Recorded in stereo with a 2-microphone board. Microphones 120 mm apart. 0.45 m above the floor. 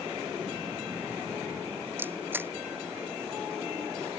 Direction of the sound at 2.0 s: 15° right (ahead or behind).